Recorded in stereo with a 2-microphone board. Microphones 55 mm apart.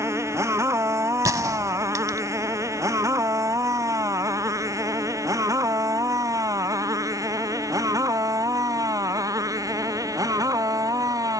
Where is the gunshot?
80° right.